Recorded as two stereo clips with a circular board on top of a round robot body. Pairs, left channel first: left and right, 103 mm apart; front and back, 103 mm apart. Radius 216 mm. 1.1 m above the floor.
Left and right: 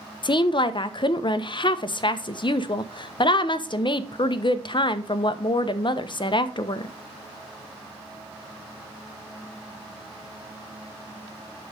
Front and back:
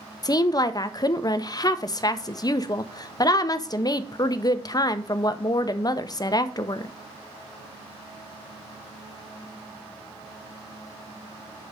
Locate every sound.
0.2 s a woman speaking: 50° left, 0.7 m